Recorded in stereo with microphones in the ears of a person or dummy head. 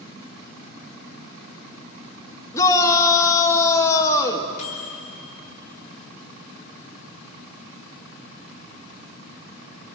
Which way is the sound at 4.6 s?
35° left (ahead or behind).